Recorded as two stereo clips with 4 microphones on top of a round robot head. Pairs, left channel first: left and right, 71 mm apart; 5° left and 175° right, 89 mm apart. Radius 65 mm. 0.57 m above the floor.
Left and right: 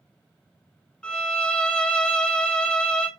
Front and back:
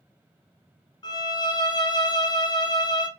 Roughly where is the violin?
Ahead.